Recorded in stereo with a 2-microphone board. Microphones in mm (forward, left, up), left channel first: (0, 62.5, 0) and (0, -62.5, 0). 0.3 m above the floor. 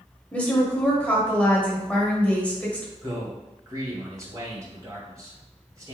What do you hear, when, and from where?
0.3 s a woman speaking: 10° left (ahead or behind), 1.1 m
3.0 s a man speaking: 25° right (ahead or behind), 2.0 m